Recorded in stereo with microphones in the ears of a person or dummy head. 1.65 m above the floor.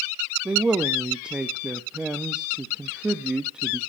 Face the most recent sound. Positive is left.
turn(degrees=-5)  # may be behind; listen again after turning